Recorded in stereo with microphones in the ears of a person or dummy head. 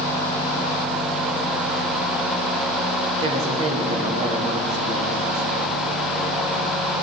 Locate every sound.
3.2 s a woman speaking: 30° right (ahead or behind), 1.8 m